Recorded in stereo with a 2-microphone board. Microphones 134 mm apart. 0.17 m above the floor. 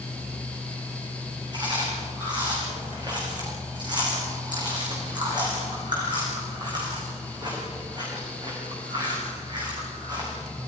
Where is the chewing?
35° right (ahead or behind), 6 m.